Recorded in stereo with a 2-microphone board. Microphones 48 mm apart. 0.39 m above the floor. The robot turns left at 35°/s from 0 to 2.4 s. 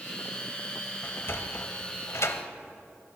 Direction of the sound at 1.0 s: 45° left (ahead or behind).